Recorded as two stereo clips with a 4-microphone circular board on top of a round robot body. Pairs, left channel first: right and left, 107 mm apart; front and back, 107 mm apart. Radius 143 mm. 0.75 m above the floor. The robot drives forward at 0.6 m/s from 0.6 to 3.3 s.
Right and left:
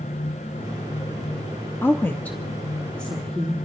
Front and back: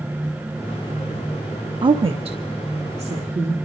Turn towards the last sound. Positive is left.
turn(degrees=-170)